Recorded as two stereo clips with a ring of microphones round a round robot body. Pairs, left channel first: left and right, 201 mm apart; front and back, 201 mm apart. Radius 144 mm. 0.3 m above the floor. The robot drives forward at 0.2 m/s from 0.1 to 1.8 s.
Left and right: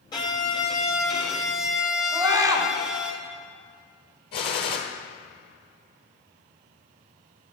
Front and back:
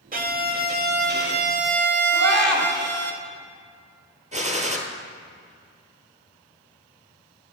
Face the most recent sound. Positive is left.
turn(degrees=120)